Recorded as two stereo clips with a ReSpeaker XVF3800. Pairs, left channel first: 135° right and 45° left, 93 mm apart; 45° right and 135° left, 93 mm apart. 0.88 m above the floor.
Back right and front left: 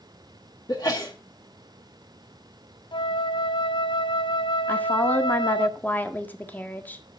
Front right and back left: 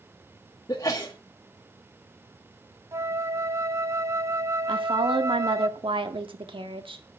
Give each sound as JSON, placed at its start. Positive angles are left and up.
{"t": 0.7, "sound": "a sneeze", "azimuth_deg": -95, "distance_m": 1.5}
{"t": 2.9, "sound": "a flute", "azimuth_deg": -165, "distance_m": 0.7}
{"t": 4.7, "sound": "a woman speaking", "azimuth_deg": 155, "distance_m": 1.6}